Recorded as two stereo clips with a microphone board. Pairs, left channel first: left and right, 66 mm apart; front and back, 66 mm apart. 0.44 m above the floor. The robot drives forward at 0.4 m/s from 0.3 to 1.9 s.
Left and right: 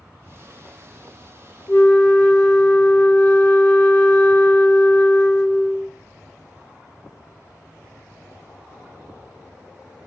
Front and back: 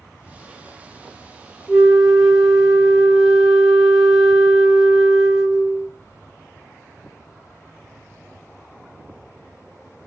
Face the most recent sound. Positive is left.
turn(degrees=110)